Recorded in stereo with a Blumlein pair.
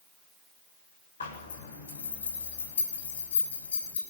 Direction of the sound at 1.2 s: 65° left.